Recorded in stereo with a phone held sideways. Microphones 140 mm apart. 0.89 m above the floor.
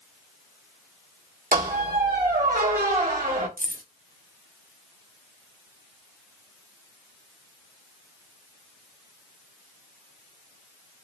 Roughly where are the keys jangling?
Right.